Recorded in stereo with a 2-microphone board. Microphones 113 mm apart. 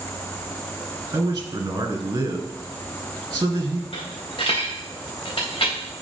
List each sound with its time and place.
1.1 s a man speaking: 30° right (ahead or behind), 1.8 m
3.9 s a dropped coin: 50° left (ahead or behind), 2.5 m